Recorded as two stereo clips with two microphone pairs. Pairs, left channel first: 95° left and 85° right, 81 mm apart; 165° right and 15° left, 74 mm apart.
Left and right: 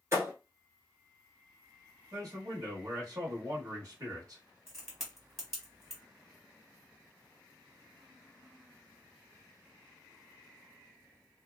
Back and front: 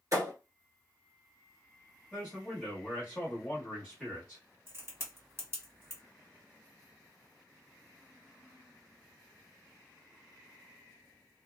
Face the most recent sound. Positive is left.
turn(degrees=0)